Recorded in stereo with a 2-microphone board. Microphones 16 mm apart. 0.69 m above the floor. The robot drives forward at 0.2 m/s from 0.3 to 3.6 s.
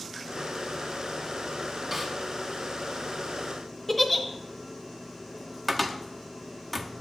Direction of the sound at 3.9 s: 15° left (ahead or behind).